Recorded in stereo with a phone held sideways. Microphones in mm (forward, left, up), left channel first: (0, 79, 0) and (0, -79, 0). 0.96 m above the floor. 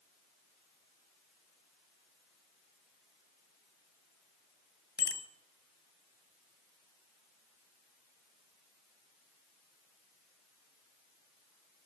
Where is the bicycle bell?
85° left, 3 m.